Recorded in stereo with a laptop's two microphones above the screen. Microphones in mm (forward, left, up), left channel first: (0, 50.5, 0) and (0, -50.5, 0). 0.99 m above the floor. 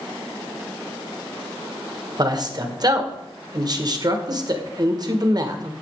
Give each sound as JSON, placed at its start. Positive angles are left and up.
{"t": 2.2, "sound": "a man speaking", "side_deg": -40, "distance_m": 1.0}